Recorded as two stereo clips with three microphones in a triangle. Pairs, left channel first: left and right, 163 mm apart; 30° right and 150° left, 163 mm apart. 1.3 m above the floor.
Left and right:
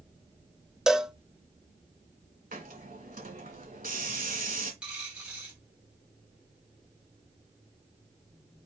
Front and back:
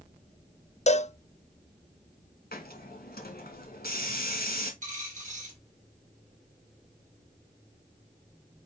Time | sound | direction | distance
0.9 | a cowbell | 5° right | 0.5 m
2.5 | a hiss | 55° right | 2.5 m
4.8 | a dropped coin | 175° right | 3.5 m